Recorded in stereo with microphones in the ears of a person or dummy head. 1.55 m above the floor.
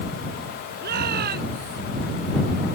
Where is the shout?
50° right (ahead or behind).